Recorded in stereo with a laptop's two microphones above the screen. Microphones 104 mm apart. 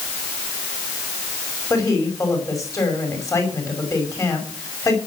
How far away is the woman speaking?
About 5.5 m.